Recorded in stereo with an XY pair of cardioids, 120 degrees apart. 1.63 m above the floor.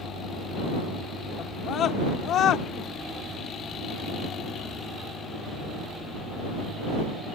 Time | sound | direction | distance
1.4 | a scream | 50° left | ?